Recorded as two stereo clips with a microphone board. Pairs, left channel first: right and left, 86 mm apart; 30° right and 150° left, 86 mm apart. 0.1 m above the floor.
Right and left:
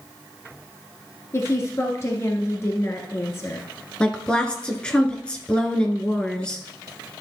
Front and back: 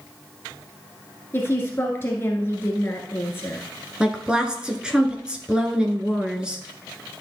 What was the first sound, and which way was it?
A woman speaking, 65° right.